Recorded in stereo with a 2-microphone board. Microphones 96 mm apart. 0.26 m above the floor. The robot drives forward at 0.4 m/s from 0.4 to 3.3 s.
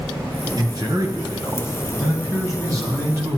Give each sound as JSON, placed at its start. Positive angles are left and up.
{"t": 0.6, "sound": "a man speaking", "side_deg": -45, "distance_m": 1.4}